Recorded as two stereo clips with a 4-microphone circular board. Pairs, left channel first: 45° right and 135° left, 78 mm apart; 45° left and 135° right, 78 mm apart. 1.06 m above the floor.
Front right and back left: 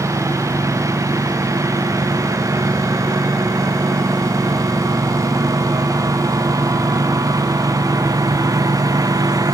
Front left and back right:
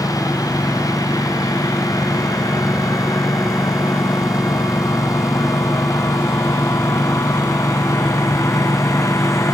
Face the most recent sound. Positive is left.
turn(degrees=95)